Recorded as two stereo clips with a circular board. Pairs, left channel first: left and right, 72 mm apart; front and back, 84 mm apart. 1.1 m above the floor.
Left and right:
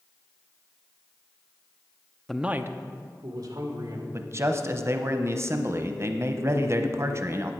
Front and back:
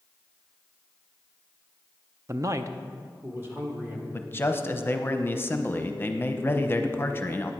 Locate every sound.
2.3 s a man speaking: 170° left, 0.5 m; by 4.0 s 110° right, 2.5 m
4.1 s a man speaking: 55° right, 0.8 m